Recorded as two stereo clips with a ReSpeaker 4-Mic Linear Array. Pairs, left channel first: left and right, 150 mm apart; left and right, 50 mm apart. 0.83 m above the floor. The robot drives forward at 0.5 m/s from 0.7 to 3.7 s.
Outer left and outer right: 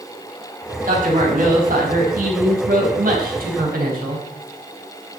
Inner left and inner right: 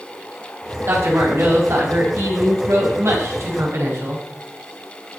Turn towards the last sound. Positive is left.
turn(degrees=-80)